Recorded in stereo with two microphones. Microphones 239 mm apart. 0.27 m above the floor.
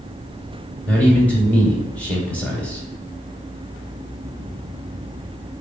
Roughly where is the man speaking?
Centre.